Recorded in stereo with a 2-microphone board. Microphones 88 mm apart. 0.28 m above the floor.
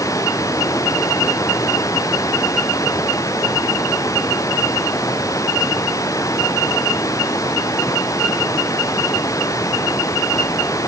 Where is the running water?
40° left (ahead or behind).